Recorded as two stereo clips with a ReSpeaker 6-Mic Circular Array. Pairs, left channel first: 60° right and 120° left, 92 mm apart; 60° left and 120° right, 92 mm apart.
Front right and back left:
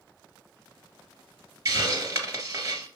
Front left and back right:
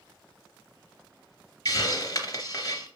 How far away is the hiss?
About 1.8 m.